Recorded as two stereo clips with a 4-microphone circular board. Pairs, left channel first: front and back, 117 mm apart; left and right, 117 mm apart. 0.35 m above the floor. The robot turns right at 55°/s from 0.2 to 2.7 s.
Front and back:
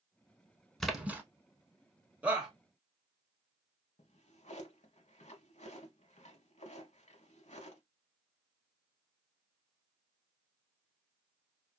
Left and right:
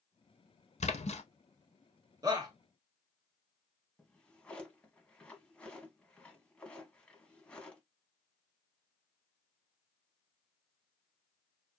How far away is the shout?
About 1.2 m.